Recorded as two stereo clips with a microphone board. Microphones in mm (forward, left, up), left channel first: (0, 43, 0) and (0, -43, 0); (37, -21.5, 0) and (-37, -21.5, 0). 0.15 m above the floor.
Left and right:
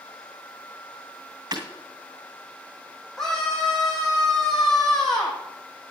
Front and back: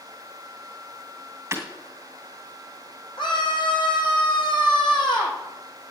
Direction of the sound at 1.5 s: 125° right.